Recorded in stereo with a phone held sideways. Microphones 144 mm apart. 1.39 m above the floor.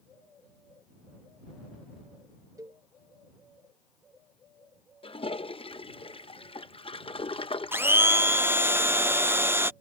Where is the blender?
15° right (ahead or behind).